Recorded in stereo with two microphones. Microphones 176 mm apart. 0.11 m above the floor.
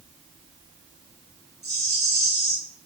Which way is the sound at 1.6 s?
70° right (ahead or behind).